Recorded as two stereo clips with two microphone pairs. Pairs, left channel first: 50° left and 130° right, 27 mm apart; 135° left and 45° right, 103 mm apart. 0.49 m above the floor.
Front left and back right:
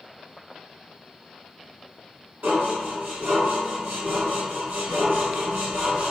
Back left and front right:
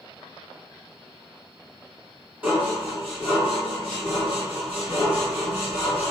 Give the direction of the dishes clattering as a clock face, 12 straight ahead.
4 o'clock.